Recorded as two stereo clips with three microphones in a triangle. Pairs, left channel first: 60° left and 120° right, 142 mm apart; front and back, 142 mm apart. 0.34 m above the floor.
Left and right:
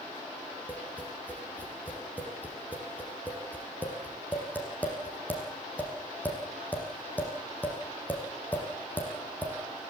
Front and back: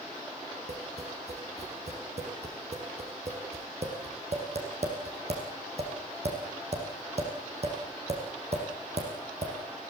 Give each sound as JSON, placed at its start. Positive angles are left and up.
{"t": 0.7, "sound": "tapping", "azimuth_deg": 140, "distance_m": 6.0}